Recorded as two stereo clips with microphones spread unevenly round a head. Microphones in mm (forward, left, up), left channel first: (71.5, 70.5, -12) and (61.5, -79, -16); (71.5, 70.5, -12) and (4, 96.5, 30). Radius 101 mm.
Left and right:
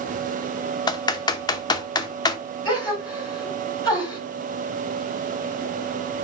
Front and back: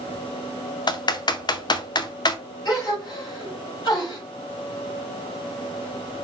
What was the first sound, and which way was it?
Typing on a keyboard, 20° left.